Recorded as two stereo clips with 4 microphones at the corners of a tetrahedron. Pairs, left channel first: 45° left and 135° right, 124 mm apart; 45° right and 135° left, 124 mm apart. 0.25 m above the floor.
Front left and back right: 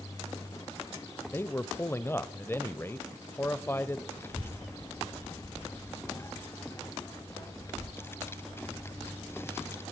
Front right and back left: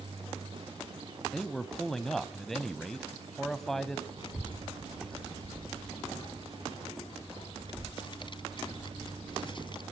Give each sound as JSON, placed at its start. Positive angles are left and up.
{"t": 1.3, "sound": "a man speaking", "azimuth_deg": 35, "distance_m": 1.0}
{"t": 4.2, "sound": "a child speaking", "azimuth_deg": -20, "distance_m": 1.3}